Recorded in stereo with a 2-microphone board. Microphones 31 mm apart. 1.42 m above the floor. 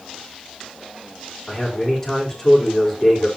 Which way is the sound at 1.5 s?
10° left (ahead or behind).